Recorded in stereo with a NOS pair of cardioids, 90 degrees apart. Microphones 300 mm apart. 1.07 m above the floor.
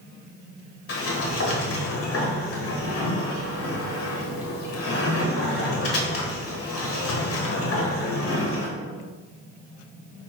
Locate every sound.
0.9 s a sliding door: 50° left, 1.3 m